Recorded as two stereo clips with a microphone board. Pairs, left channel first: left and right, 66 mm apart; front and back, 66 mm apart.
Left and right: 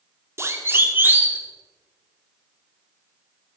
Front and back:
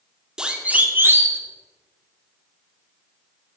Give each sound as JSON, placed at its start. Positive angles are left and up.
{"t": 0.4, "sound": "a siren", "azimuth_deg": -105, "distance_m": 2.0}